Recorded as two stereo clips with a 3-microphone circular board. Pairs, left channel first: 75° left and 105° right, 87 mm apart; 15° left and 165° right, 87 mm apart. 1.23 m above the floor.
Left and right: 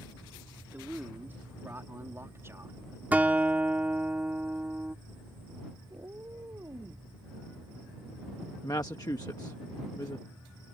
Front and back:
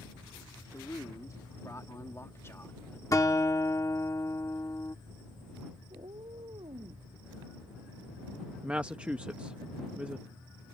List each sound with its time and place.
0.7 s a man speaking: 35° right; by 3.0 s 50° right
3.1 s a guitar: 35° right
5.9 s a cat meowing: 160° right
8.6 s a woman speaking: 120° left